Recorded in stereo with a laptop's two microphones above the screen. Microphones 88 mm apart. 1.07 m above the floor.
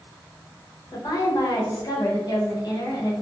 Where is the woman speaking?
55° left (ahead or behind), 0.9 m.